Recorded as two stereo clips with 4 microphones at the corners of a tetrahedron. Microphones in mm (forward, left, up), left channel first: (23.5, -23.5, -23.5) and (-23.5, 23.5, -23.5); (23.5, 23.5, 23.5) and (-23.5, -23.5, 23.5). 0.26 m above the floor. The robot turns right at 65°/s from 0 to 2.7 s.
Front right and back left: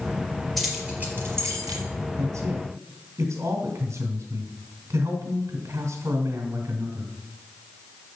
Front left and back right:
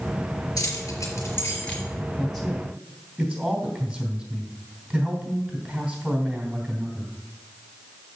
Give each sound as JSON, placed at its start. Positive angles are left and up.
{"t": 0.6, "sound": "keys jangling", "azimuth_deg": 45, "distance_m": 4.0}
{"t": 2.2, "sound": "a man speaking", "azimuth_deg": 125, "distance_m": 3.0}